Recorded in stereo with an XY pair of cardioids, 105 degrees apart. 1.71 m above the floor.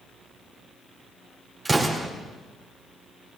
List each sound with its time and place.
1.6 s an explosion: 20° right, 4 m